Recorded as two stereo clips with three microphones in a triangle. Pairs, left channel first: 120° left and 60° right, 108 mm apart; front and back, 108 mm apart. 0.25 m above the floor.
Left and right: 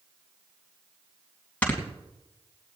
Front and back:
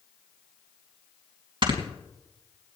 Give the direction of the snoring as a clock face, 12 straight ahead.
6 o'clock.